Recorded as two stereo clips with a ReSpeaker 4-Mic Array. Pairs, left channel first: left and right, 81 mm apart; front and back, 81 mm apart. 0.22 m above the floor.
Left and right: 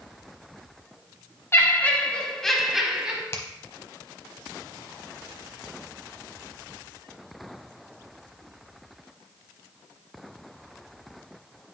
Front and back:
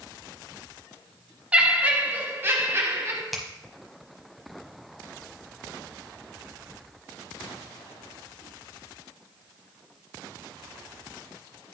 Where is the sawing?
I don't hear sawing.